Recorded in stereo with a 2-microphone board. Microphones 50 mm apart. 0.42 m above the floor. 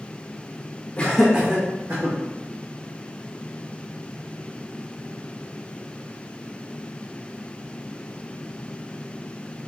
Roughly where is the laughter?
Left.